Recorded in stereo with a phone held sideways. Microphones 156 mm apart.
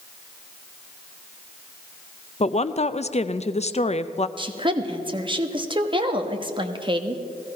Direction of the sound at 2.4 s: 45° left (ahead or behind).